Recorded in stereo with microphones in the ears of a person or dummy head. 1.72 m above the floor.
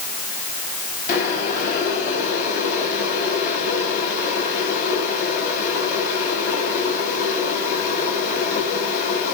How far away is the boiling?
About 6 m.